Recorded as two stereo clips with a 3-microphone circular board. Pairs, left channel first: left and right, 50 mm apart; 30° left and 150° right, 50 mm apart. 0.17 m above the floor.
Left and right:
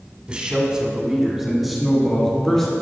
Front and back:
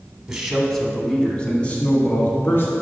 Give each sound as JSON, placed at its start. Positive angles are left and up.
{"t": 0.3, "sound": "a man speaking", "azimuth_deg": -95, "distance_m": 1.3}